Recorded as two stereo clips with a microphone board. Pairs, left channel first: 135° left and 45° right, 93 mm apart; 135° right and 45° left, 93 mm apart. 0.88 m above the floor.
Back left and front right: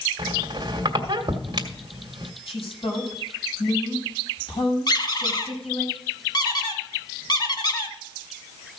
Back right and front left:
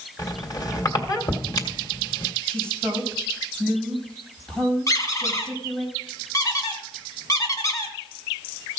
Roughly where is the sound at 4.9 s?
Behind.